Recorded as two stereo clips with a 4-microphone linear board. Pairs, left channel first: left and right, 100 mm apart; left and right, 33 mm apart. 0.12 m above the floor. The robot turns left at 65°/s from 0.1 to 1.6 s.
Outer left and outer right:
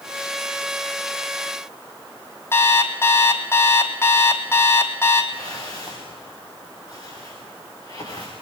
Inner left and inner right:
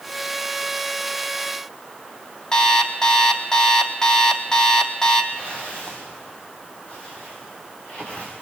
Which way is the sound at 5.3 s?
40° left (ahead or behind).